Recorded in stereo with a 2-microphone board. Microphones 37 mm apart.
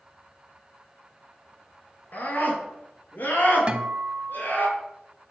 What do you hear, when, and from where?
2.1 s a scream: 60° left (ahead or behind), 3 m; by 4.7 s 65° left (ahead or behind), 4.5 m
3.7 s a guitar: 30° right (ahead or behind), 0.7 m